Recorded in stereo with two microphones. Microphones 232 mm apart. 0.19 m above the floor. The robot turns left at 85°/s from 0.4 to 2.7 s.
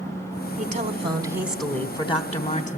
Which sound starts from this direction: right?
A woman speaking, at 0.6 s.